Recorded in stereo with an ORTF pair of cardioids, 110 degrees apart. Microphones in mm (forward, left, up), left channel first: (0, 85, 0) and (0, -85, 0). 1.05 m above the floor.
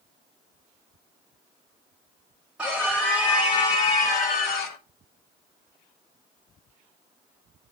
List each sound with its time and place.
2.6 s a scream: 5° right, 1.3 m; by 4.8 s 65° left, 1.8 m